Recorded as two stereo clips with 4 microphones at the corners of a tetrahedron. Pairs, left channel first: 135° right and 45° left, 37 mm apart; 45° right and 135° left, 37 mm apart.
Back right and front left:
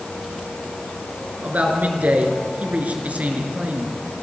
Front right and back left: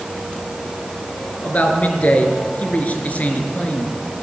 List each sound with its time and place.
1.4 s a man speaking: straight ahead, 4 m